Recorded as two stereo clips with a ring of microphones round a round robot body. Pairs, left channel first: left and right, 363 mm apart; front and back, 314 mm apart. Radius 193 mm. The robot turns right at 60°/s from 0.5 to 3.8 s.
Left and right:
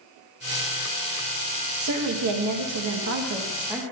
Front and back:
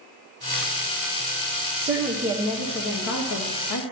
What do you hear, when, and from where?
1.8 s a woman speaking: 120° right, 1.2 m; by 3.8 s straight ahead, 1.2 m